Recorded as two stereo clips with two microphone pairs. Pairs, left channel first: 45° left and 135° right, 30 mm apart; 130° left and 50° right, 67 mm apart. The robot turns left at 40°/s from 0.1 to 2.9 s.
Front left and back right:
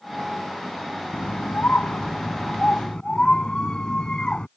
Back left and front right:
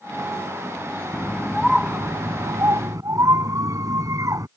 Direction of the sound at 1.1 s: 55° left.